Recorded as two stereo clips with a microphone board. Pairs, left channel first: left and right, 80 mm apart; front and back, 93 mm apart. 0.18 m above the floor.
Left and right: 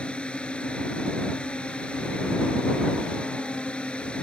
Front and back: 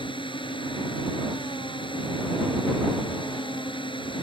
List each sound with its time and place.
0.0 s a drone: 15° left